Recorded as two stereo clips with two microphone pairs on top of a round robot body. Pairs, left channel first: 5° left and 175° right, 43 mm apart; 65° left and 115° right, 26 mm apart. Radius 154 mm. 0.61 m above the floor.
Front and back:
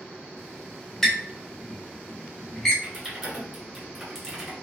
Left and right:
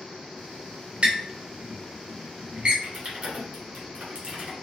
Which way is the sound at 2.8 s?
90° right.